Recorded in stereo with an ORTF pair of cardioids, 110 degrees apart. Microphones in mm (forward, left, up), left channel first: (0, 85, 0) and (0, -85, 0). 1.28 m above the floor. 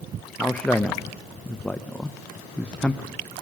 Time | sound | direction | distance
0.4 | a man speaking | 10° left | 0.8 m